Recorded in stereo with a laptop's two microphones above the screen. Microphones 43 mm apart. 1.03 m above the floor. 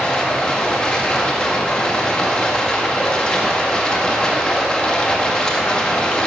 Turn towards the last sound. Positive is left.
turn(degrees=20)  # may be behind; listen again after turning